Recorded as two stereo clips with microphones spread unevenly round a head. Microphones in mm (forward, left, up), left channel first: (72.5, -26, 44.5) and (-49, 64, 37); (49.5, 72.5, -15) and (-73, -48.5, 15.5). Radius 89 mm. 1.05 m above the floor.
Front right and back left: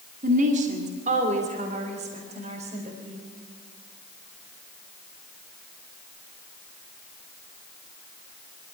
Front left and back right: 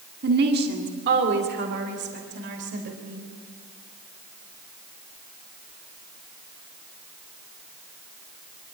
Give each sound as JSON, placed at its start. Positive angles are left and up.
{"t": 0.2, "sound": "a woman speaking", "azimuth_deg": -170, "distance_m": 2.0}